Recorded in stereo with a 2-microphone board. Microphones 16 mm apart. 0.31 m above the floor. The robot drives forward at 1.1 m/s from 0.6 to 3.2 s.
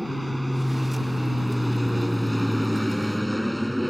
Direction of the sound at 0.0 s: 5° right (ahead or behind).